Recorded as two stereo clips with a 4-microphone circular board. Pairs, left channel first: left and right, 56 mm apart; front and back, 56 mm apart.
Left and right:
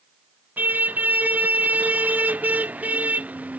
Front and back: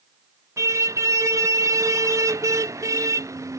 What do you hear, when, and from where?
0.6 s a car horn: 150° right; by 3.6 s 155° right